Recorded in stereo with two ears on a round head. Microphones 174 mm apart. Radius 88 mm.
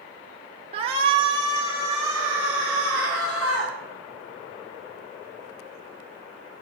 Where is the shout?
30° right (ahead or behind), 1.2 m; by 3.7 s 5° right (ahead or behind), 4 m.